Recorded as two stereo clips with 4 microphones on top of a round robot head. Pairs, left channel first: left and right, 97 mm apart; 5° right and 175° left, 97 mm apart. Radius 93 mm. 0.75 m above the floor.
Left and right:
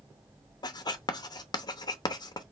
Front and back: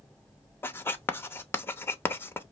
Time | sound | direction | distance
0.6 | writing | 55° left | 0.8 m